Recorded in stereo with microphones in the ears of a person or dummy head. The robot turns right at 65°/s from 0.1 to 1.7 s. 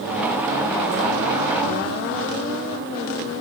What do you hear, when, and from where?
Only background noise.